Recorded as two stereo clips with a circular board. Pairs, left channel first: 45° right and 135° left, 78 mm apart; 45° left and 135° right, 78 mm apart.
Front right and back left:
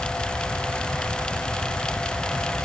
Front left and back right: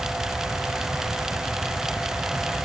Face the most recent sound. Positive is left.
No sound to turn to.